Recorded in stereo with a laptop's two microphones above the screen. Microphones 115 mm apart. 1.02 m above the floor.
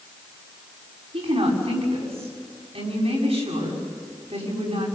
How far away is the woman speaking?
About 7 m.